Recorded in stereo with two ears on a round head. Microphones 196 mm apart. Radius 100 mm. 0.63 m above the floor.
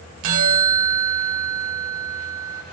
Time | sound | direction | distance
0.2 | a bell | 70° right (ahead or behind) | 1.3 m